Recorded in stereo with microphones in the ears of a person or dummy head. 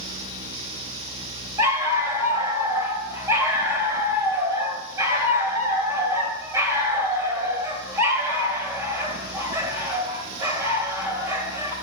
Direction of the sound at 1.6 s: 10° right (ahead or behind).